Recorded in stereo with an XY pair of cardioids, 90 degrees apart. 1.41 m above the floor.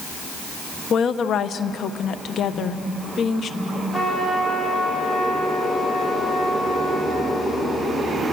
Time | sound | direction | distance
0.9 | a woman speaking | 70° left | 1.1 m
2.5 | a phone buzzing | 55° left | 4 m
3.9 | a trumpet | 15° left | 7 m